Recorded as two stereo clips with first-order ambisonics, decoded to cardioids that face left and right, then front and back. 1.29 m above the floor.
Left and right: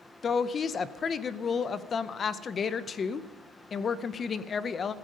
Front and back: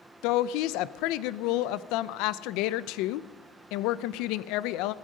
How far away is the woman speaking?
About 0.6 m.